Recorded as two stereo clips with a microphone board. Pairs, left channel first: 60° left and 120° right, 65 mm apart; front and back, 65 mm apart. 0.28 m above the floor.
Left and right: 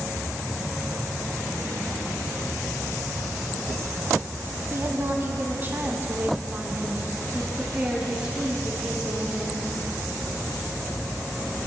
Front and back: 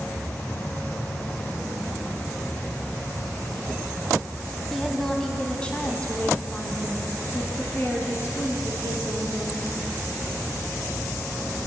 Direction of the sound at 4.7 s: 90° right.